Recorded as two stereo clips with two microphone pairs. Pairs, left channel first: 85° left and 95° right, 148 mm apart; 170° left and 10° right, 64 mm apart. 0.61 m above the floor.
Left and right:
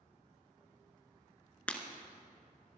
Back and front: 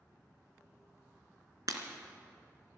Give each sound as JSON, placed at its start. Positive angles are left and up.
{"t": 1.7, "sound": "breaking glass", "azimuth_deg": 5, "distance_m": 1.5}